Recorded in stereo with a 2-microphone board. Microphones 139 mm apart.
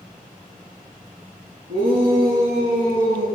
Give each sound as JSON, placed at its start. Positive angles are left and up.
{"t": 1.7, "sound": "a shout", "side_deg": -85, "distance_m": 6.5}